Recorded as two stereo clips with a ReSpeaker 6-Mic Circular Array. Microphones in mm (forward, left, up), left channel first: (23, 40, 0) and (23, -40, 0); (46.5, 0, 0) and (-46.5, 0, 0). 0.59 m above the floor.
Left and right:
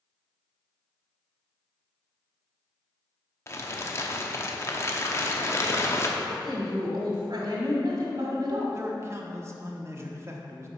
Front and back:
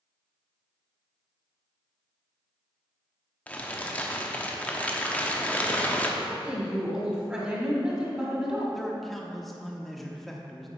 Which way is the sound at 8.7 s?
90° right.